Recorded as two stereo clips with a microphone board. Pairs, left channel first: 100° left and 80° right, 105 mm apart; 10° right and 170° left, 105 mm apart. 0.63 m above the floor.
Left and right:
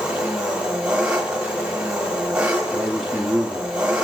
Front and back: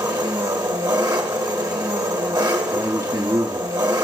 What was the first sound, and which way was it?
An engine running, 155° right.